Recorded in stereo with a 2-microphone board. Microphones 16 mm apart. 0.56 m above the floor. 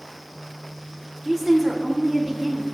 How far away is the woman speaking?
About 1.9 m.